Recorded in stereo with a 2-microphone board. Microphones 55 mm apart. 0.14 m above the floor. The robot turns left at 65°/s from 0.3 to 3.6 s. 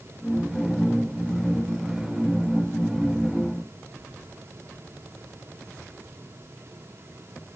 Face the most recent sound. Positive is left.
No sound to turn to.